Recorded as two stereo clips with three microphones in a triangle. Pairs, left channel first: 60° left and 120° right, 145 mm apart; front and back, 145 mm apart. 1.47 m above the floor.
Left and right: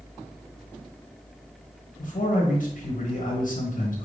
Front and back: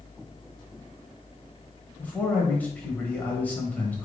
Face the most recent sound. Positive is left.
turn(degrees=80)